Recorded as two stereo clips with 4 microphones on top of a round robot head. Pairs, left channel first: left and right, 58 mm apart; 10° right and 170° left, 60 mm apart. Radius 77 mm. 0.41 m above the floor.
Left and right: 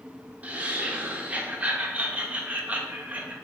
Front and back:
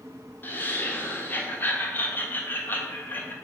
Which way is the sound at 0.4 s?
40° right.